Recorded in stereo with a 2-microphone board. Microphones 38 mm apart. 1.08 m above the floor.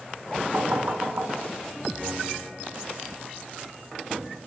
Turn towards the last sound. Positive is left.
turn(degrees=-50)  # may be behind; listen again after turning